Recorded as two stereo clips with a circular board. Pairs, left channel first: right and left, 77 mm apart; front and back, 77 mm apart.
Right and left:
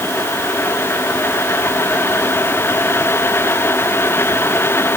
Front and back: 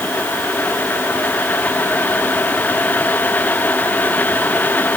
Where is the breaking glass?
No breaking glass in this recording.